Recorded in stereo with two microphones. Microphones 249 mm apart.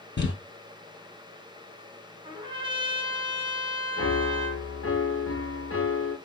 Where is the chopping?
I don't hear chopping.